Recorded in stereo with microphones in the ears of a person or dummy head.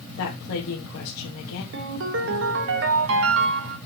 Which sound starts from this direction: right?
A ringtone, at 1.7 s.